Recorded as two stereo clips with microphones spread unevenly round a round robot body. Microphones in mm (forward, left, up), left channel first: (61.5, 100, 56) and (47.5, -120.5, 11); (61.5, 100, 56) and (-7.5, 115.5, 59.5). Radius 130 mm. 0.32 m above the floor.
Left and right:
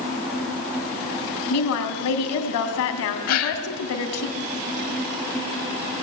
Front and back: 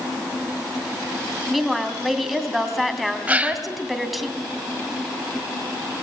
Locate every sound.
1.5 s a woman speaking: 80° left, 2.5 m
3.3 s a gasp: 100° left, 2.0 m